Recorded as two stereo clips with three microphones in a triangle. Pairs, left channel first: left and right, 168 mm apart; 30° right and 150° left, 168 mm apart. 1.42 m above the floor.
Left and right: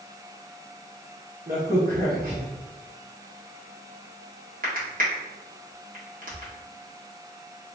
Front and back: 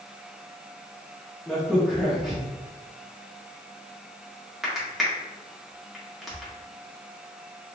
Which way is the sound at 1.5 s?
120° right.